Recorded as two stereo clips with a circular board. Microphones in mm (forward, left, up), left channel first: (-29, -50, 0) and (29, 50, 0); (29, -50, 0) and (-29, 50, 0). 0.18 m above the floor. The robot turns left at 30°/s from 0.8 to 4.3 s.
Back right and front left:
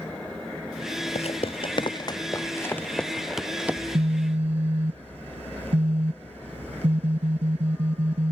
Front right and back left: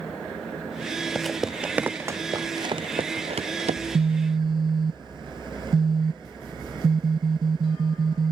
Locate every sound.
1.1 s footsteps: 145° right; by 3.8 s 135° left
3.8 s a phone buzzing: 90° left; by 8.3 s 75° left